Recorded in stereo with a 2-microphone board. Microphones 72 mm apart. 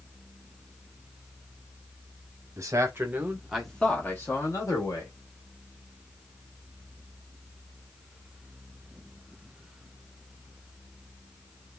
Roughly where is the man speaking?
Right.